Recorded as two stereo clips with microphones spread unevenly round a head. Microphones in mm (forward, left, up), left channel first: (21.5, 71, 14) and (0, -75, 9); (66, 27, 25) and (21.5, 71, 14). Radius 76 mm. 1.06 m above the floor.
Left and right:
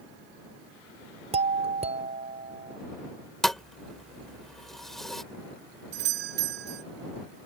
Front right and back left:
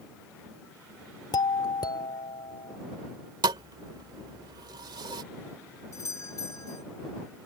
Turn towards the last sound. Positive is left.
turn(degrees=-105)